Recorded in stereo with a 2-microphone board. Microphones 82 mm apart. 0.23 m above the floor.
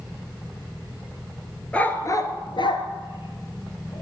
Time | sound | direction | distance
1.7 | a dog barking | 15° left (ahead or behind) | 1.1 m